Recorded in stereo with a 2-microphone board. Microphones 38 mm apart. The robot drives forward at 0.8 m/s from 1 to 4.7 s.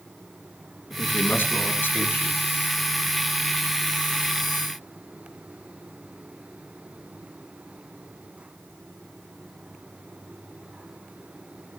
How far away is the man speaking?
About 4 m.